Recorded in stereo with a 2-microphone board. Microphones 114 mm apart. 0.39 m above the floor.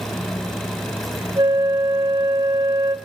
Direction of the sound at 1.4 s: 40° right (ahead or behind).